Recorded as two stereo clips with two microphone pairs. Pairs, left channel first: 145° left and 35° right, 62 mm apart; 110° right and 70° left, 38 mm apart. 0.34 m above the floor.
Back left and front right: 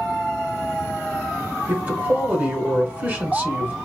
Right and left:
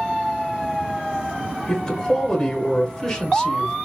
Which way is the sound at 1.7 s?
60° right.